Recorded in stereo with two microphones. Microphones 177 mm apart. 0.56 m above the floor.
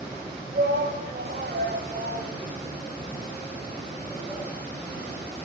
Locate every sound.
0.5 s a shout: 75° right (ahead or behind), 3.5 m; by 4.5 s 45° right (ahead or behind), 7 m